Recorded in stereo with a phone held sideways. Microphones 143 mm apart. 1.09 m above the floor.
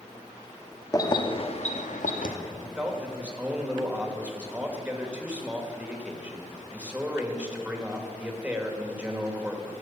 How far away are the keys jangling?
About 1.1 m.